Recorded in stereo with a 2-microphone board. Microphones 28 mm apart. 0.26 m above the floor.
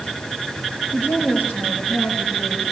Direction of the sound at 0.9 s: 85° left.